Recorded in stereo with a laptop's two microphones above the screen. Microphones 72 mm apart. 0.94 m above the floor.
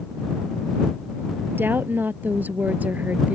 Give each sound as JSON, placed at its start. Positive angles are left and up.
{"t": 1.5, "sound": "a woman speaking", "side_deg": -30}